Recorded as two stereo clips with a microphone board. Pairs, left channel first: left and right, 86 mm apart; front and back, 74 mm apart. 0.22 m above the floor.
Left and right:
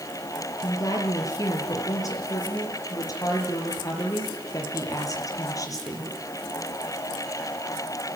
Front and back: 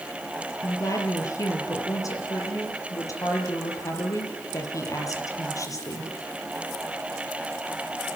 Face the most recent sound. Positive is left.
turn(degrees=40)